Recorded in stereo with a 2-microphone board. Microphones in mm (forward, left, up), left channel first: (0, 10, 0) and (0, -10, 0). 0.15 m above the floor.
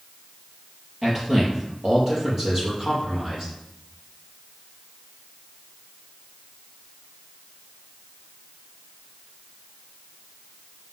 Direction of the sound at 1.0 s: 20° right (ahead or behind).